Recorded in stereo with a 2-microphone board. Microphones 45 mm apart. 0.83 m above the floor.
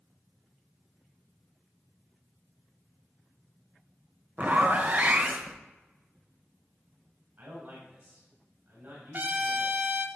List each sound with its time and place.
4.4 s a zipper: 40° right (ahead or behind), 1.0 m
7.4 s a man speaking: 65° right (ahead or behind), 3.5 m
9.1 s a trumpet: 45° right (ahead or behind), 1.1 m